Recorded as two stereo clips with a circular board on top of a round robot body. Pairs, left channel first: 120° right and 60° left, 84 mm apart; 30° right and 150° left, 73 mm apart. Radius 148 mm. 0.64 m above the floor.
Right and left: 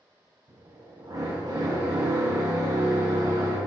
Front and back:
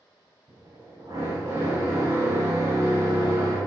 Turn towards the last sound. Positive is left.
turn(degrees=105)